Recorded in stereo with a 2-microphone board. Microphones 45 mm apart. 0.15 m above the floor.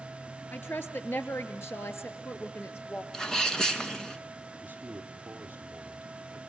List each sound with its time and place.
0.5 s a woman speaking: 55° left (ahead or behind), 2.5 m; by 3.0 s 65° left (ahead or behind), 3.5 m
3.1 s a sneeze: 15° left (ahead or behind), 2 m
4.6 s a man speaking: 35° right (ahead or behind), 3 m